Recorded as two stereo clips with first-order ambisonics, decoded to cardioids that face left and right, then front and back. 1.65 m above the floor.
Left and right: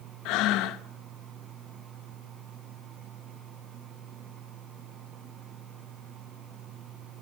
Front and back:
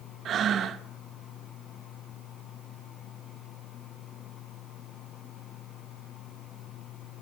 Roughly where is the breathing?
Behind left.